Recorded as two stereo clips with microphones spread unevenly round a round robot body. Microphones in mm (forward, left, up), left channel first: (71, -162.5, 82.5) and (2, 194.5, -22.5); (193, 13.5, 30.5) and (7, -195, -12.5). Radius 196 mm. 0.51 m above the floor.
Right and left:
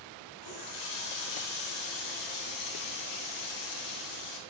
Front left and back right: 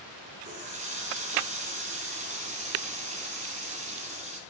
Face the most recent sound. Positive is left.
turn(degrees=-65)